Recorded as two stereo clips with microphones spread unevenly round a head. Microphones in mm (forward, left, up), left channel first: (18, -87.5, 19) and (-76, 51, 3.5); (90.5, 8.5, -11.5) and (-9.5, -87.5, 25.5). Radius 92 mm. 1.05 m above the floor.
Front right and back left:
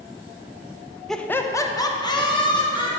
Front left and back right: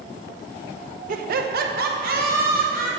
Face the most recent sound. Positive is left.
turn(degrees=-120)